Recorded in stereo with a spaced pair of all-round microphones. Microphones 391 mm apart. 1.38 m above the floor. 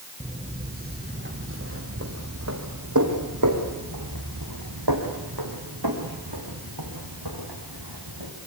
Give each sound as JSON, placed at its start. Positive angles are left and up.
{"t": 0.2, "sound": "footsteps", "side_deg": -15, "distance_m": 3.5}